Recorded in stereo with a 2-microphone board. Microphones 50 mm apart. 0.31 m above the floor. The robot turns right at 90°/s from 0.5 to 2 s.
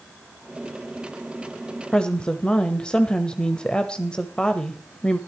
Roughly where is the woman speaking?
Centre.